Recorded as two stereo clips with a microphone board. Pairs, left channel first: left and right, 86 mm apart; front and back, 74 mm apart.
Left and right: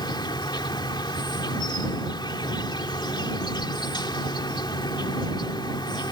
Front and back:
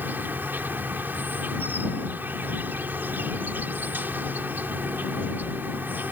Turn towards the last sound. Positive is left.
turn(degrees=115)